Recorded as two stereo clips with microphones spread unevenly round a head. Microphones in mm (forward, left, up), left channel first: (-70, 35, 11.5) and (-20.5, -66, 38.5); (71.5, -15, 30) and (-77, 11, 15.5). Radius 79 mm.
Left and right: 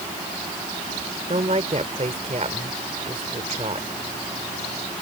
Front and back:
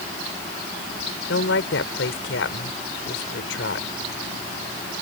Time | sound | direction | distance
1.3 | a woman speaking | 10° right | ?